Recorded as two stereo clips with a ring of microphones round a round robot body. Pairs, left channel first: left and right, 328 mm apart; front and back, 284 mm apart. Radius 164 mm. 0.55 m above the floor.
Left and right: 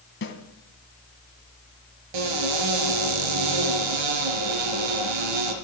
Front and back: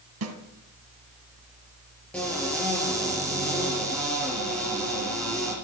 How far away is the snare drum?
About 2.5 m.